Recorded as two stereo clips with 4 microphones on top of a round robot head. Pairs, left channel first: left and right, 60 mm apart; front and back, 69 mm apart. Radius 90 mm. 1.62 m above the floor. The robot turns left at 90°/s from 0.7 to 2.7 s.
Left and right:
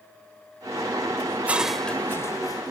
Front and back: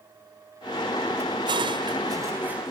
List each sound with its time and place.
1.3 s dishes clattering: 140° right; by 2.7 s 95° left